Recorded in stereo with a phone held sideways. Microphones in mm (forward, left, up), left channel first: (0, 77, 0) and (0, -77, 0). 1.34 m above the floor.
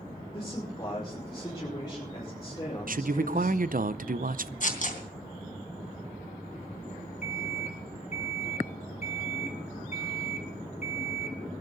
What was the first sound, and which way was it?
A man speaking, 25° left (ahead or behind).